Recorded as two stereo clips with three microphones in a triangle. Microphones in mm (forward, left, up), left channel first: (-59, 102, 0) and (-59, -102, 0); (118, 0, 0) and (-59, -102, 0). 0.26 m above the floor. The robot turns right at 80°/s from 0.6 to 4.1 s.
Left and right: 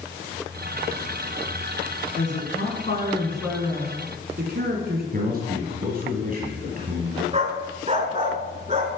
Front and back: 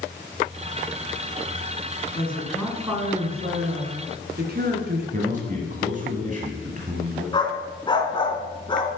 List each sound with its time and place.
2.1 s a woman speaking: 80° left, 3 m; by 5.0 s 125° right, 3 m
5.1 s a man speaking: 115° right, 1.8 m
7.3 s a dog barking: 35° right, 1.2 m